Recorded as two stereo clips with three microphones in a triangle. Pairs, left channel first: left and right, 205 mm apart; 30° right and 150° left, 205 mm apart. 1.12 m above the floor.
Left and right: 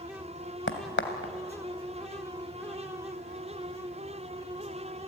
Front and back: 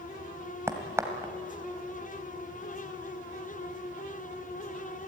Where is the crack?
75° left, 2 m.